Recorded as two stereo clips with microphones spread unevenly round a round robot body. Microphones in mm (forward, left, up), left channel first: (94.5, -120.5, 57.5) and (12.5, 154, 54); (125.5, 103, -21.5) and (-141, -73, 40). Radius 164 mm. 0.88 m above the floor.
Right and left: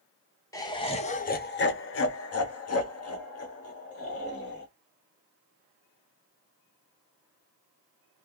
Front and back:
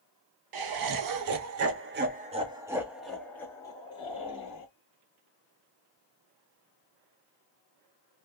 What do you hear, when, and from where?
0.5 s laughter: 150° right, 1.0 m; by 4.7 s 30° right, 1.7 m